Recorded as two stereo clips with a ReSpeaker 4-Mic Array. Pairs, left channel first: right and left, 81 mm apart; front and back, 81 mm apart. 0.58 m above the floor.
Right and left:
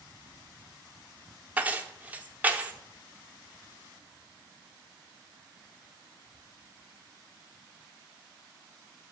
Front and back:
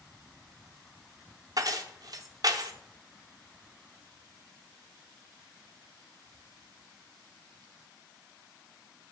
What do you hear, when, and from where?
1.6 s keys jangling: 155° left, 0.7 m